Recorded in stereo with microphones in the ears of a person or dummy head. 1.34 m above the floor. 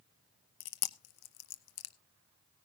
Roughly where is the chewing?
Left.